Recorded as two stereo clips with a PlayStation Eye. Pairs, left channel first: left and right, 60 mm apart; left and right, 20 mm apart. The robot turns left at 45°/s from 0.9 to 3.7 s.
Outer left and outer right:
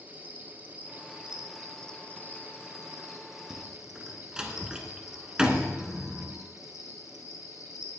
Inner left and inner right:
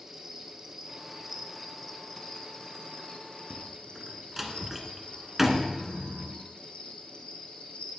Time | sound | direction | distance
0.0 | an insect | 145° right | 1.3 m
3.5 | a door slam | 20° right (ahead or behind) | 1.4 m